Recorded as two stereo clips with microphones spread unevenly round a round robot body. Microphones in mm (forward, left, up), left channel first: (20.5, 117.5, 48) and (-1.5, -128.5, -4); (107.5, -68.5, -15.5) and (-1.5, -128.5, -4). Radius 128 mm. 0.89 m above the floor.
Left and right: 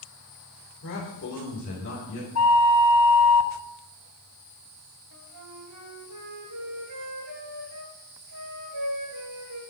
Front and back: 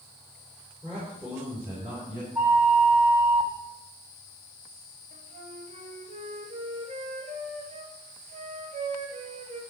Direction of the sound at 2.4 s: 125° left.